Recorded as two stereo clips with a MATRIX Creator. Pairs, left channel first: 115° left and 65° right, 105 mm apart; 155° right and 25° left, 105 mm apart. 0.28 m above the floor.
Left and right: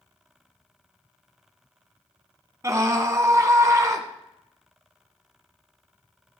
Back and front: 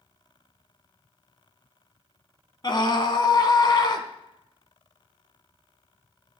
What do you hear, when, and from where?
2.6 s a scream: 120° right, 1.9 m